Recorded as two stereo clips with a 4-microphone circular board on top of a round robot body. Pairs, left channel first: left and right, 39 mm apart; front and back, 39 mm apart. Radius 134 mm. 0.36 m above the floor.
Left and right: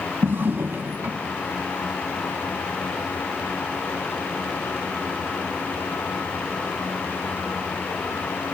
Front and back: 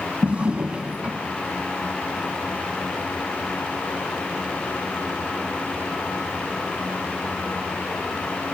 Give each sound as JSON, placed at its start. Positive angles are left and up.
{"t": 0.2, "sound": "a drawer", "azimuth_deg": -120, "distance_m": 1.8}